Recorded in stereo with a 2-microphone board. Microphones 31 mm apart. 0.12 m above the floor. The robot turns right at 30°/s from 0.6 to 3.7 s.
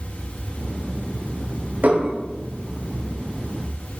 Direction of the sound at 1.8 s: 65° right (ahead or behind).